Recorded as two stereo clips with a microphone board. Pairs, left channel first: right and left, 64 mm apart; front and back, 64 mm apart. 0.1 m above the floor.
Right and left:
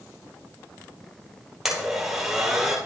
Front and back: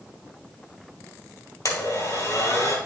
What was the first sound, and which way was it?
A blender, 10° left.